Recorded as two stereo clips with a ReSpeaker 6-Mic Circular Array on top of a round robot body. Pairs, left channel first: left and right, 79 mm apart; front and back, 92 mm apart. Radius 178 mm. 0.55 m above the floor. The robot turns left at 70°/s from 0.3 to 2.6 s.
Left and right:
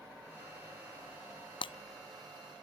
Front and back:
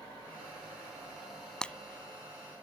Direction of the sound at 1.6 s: 85° left.